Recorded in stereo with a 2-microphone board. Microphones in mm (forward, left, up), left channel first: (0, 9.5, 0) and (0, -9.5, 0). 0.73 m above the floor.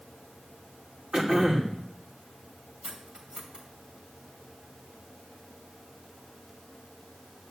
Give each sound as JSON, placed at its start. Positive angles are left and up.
{"t": 1.1, "sound": "throat clearing", "side_deg": -50, "distance_m": 2.5}
{"t": 2.8, "sound": "cutlery clinking", "side_deg": -60, "distance_m": 2.0}